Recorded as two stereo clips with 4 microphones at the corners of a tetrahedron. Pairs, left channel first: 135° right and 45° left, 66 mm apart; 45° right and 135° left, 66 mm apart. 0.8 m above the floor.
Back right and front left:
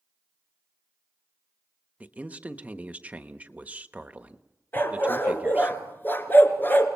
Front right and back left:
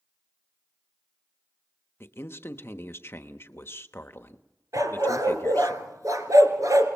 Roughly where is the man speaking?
Ahead.